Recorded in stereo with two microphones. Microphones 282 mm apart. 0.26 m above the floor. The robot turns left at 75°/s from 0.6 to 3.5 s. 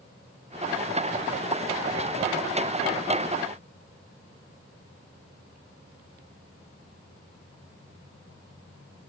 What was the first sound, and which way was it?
Only background noise.